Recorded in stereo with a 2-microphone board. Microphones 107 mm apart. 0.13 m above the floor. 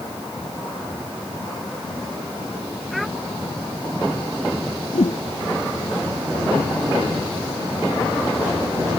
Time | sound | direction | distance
2.9 | a child speaking | centre (ahead or behind) | ?
4.9 | a whoosh | 80° left | ?